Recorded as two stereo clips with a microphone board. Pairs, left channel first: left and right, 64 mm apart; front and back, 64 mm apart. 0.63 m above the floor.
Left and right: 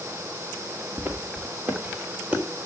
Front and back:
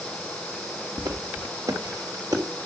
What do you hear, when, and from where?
1.0 s footsteps: 150° right, 4 m; by 2.4 s 160° right, 3.5 m